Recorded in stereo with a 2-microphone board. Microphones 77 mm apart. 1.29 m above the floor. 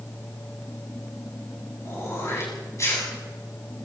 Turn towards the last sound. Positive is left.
turn(degrees=40)  # may be behind; listen again after turning